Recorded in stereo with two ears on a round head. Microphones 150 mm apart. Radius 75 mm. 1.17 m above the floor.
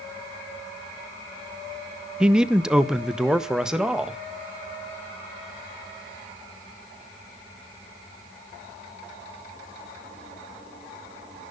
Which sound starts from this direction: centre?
A man speaking, at 2.2 s.